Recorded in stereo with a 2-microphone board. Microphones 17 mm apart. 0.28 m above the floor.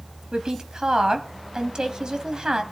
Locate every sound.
0.3 s a woman speaking: 50° right (ahead or behind), 1.8 m